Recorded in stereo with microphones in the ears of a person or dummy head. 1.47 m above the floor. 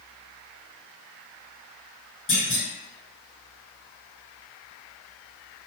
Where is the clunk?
30° left (ahead or behind), 1.6 m.